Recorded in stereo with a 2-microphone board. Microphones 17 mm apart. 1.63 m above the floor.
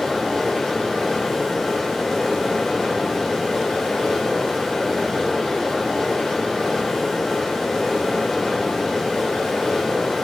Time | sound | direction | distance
0.0 | running water | 55° left (ahead or behind) | 1.5 m